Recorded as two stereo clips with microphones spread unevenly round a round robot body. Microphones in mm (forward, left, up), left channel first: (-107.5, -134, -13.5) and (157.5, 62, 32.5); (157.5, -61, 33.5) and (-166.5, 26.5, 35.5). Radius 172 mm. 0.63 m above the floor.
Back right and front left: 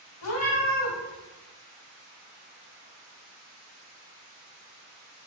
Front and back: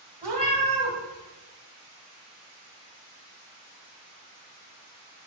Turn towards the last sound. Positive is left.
turn(degrees=-100)